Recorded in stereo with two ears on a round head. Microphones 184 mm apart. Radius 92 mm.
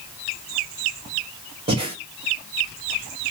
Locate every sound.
1.7 s breathing: 25° right (ahead or behind), 1.1 m